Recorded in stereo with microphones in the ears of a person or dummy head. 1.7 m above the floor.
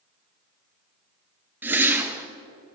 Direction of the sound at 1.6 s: 5° right (ahead or behind).